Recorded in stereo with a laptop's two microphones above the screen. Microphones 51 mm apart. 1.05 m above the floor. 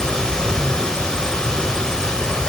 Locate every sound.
0.0 s running water: 15° left (ahead or behind), 1.2 m